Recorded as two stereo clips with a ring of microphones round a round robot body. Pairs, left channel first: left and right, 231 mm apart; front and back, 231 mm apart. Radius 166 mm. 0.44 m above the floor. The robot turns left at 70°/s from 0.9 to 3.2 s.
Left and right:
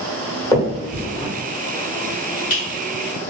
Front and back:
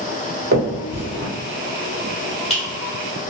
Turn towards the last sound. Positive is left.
turn(degrees=0)